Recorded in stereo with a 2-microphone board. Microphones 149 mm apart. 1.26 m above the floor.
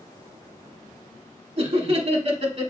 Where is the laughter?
50° right (ahead or behind), 1.0 m.